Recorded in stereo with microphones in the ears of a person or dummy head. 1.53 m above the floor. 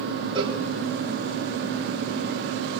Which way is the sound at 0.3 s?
30° right (ahead or behind).